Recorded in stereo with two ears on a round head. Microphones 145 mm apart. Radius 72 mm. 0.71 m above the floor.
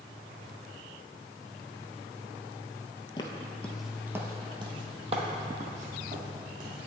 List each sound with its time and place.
3.2 s footsteps: 30° left (ahead or behind), 0.7 m; by 6.8 s 55° right (ahead or behind), 2.0 m